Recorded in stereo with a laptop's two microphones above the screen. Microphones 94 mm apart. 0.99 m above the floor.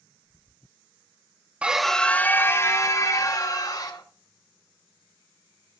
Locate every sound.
1.6 s a scream: 10° right (ahead or behind), 0.8 m; by 4.0 s 40° left (ahead or behind), 2.5 m